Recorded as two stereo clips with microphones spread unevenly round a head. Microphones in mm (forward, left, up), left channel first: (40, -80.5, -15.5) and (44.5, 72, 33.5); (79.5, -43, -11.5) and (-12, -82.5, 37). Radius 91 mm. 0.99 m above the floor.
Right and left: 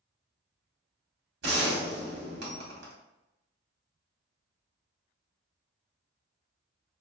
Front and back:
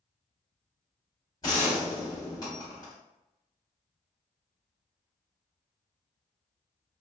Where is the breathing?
No breathing in this recording.